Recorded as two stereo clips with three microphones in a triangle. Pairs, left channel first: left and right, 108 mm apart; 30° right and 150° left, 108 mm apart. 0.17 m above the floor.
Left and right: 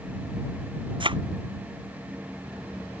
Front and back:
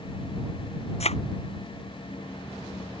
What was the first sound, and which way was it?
A thud, 50° right.